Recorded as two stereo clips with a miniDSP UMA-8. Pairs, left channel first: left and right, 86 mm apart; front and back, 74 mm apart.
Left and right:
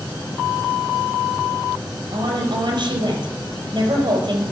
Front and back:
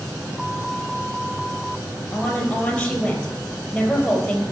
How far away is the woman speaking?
About 2.5 m.